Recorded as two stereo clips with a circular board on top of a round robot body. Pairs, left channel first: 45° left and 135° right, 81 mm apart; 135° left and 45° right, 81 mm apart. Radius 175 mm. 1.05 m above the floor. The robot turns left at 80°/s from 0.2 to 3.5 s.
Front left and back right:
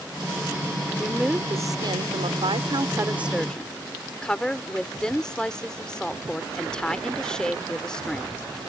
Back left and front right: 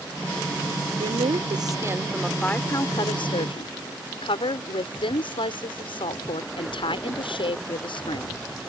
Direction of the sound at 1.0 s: 30° right.